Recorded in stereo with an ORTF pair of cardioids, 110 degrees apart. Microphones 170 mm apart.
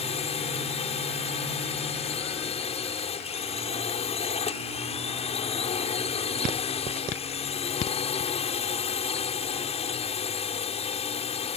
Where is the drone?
40° left.